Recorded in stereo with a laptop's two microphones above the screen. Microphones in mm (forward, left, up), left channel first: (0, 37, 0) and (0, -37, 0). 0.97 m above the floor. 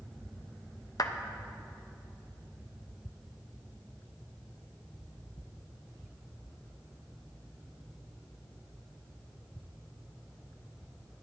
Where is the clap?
55° left (ahead or behind), 0.7 m.